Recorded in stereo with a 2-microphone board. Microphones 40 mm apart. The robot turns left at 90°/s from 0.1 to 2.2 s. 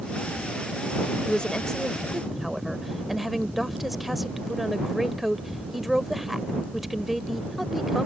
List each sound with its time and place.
1.3 s a woman speaking: 25° left (ahead or behind); by 8.1 s centre (ahead or behind)